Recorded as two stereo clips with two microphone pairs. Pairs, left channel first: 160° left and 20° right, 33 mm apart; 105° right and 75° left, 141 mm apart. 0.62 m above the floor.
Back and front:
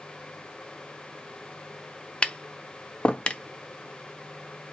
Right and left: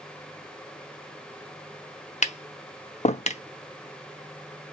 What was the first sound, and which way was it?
Tapping, 140° right.